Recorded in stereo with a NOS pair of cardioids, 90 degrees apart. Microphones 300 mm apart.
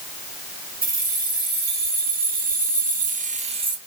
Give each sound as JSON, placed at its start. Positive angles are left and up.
{"t": 0.8, "sound": "keys jangling", "azimuth_deg": -30, "distance_m": 2.0}